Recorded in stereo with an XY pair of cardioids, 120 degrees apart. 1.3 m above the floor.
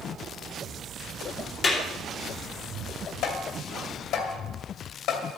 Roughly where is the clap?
Ahead left.